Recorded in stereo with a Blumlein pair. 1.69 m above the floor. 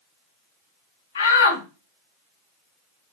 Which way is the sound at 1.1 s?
65° left.